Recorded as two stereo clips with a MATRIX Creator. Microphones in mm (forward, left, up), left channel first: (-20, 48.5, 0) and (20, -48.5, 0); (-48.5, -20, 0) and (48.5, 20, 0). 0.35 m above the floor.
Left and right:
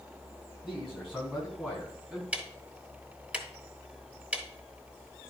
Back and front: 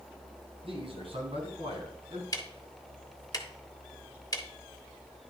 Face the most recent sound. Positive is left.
turn(degrees=-140)